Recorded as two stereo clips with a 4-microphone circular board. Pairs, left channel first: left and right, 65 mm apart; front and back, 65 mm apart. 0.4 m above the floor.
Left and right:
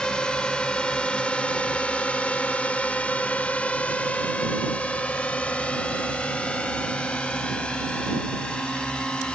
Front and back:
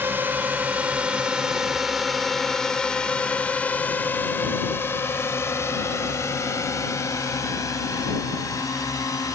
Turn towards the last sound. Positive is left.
turn(degrees=15)